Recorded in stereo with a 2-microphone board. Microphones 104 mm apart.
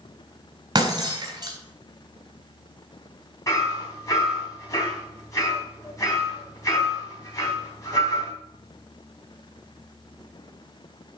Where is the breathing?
No breathing in this recording.